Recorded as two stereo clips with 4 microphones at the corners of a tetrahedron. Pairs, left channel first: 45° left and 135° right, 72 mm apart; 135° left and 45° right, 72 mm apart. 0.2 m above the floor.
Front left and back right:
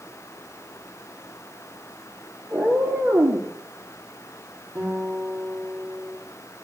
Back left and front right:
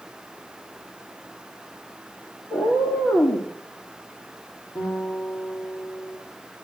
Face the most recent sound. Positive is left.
turn(degrees=160)